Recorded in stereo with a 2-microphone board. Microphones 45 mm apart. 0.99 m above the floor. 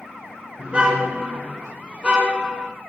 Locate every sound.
0.6 s a car horn: 30° right (ahead or behind), 6 m; by 2.7 s 25° right (ahead or behind), 4 m